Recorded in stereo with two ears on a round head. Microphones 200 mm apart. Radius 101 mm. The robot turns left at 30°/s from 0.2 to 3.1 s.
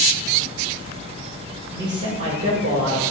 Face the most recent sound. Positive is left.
turn(degrees=-55)